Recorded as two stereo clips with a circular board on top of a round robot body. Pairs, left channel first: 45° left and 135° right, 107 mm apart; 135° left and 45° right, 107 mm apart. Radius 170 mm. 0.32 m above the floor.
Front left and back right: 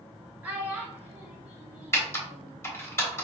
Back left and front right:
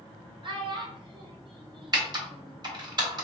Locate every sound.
0.4 s a child speaking: 65° right, 1.1 m
1.9 s typing on a keyboard: 15° right, 1.6 m